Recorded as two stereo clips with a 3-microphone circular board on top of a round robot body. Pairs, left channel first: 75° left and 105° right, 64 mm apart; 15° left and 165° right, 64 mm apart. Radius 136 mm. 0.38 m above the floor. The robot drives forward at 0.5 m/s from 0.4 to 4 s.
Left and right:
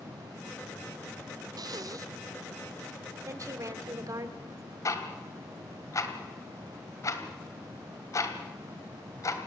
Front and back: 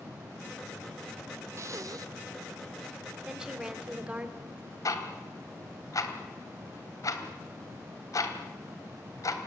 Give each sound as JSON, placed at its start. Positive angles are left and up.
{"t": 1.6, "sound": "breathing", "azimuth_deg": -120, "distance_m": 0.6}
{"t": 3.2, "sound": "a woman speaking", "azimuth_deg": -85, "distance_m": 2.5}
{"t": 4.8, "sound": "ticking", "azimuth_deg": 40, "distance_m": 2.5}